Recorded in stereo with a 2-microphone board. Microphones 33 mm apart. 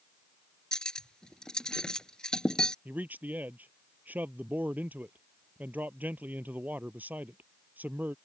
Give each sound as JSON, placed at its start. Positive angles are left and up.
{"t": 0.7, "sound": "cutlery clinking", "side_deg": 20}
{"t": 2.9, "sound": "a man speaking", "side_deg": -60}